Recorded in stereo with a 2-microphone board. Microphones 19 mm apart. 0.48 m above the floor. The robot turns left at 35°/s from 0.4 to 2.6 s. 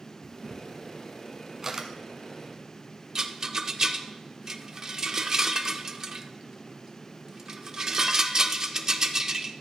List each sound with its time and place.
0.2 s a camera shutter: 15° left (ahead or behind), 1.0 m; by 1.9 s 35° right (ahead or behind), 1.0 m
3.1 s a rattle: 30° right (ahead or behind), 0.6 m